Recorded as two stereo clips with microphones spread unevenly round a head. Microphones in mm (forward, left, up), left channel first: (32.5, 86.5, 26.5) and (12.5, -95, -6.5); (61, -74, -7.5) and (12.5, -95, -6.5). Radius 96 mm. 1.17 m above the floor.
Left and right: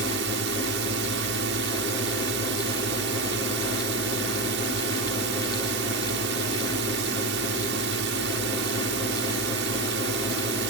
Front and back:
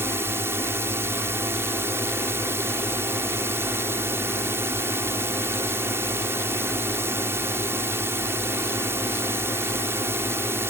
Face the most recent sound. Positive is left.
turn(degrees=-125)